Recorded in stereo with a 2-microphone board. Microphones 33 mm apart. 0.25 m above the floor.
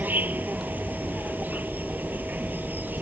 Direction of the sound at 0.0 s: 65° right (ahead or behind).